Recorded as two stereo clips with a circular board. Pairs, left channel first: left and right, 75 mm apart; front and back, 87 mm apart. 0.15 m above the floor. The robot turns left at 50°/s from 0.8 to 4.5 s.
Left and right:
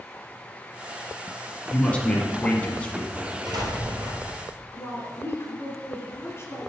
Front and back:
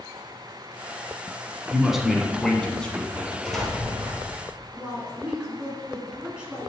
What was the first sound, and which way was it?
A man speaking, 115° left.